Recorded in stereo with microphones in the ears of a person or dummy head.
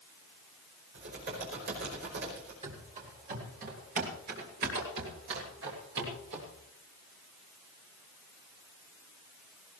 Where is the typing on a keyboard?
60° right (ahead or behind), 5 m.